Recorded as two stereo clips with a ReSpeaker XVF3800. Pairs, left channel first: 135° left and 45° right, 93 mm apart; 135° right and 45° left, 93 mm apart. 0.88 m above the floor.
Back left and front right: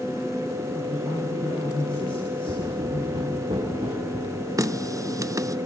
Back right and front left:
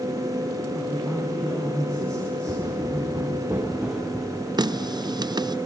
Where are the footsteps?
15° right, 6.5 m; by 4.5 s 40° right, 5.5 m.